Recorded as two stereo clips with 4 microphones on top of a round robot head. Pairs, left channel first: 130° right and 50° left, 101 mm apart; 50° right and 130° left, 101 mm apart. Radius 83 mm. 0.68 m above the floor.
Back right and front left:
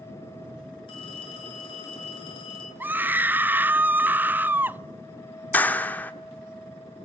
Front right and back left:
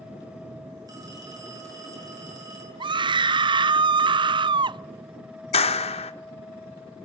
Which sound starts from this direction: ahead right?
A clap, at 5.5 s.